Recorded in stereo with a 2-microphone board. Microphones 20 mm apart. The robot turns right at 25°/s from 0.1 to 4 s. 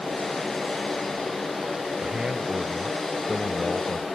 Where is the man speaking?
55° right; by 4.0 s 5° right.